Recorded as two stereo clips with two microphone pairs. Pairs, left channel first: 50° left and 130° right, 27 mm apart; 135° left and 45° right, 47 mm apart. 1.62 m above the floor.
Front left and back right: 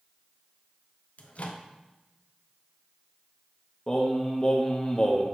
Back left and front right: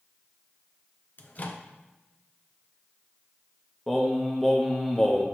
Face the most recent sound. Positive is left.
turn(degrees=55)